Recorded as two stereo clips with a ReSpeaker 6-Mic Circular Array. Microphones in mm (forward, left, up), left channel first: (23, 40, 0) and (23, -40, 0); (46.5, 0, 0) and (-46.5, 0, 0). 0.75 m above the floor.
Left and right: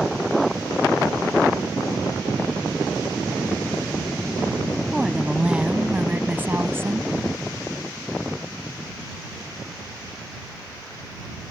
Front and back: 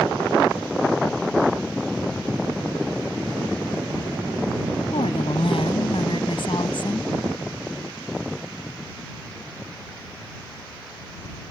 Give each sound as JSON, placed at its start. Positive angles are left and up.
{"t": 4.9, "sound": "a woman speaking", "azimuth_deg": -5}